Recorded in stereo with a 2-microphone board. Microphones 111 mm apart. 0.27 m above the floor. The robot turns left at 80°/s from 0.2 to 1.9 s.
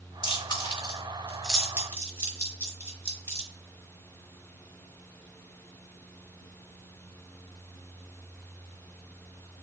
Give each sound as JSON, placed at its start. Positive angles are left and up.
{"t": 0.2, "sound": "chewing", "side_deg": 50, "distance_m": 1.5}